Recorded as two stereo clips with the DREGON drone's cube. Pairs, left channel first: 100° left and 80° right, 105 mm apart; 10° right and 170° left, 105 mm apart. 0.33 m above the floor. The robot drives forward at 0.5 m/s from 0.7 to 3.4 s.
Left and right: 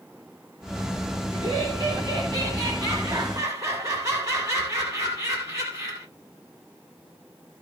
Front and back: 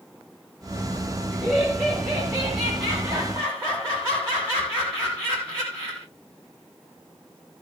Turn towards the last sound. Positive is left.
turn(degrees=-125)